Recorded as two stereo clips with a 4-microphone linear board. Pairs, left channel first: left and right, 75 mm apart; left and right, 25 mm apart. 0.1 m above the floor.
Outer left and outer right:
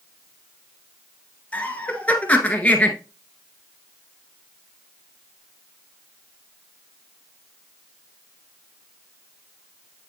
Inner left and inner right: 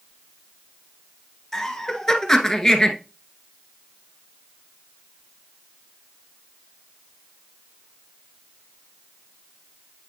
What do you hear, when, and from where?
1.5 s laughter: 20° left (ahead or behind), 1.2 m